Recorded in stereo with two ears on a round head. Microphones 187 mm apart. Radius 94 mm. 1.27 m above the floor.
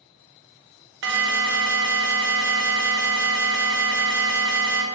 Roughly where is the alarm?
Right.